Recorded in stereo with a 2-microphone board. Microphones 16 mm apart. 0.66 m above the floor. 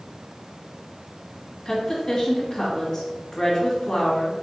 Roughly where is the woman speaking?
Left.